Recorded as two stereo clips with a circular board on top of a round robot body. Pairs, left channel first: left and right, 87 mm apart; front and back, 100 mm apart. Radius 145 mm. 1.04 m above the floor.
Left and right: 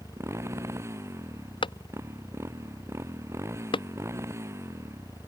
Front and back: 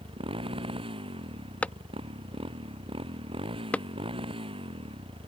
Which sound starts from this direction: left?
A clap, at 1.6 s.